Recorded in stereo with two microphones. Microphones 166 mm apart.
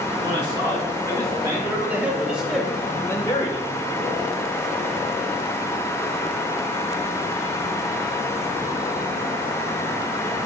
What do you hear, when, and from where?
0.2 s a man speaking: 25° right (ahead or behind), 4 m; by 3.7 s 40° left (ahead or behind), 1.2 m